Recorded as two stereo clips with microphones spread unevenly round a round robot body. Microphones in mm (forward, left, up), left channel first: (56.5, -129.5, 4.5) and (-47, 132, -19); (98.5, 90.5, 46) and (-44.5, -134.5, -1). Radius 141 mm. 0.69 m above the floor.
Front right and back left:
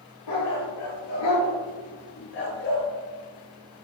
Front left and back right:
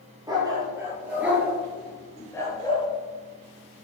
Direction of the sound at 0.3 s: 45° right.